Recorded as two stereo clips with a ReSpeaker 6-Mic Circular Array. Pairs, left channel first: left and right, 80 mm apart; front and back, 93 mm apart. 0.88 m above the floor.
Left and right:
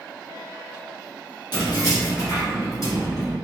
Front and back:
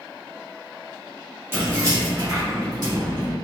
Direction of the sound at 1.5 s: 115° left.